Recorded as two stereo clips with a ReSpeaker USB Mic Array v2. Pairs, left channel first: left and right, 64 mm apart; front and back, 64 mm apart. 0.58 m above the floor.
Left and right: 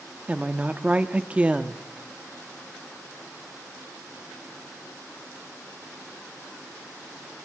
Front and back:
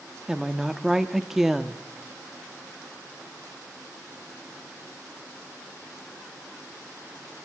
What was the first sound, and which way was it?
A woman speaking, 105° right.